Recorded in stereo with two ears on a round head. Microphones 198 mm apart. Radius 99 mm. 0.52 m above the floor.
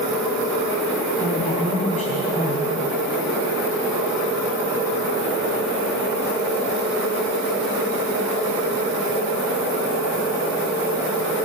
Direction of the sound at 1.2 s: 30° left (ahead or behind).